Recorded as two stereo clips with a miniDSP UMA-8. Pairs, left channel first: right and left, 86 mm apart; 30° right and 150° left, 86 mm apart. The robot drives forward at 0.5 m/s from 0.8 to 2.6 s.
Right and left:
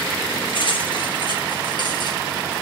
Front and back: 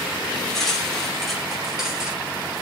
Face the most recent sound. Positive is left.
turn(degrees=-130)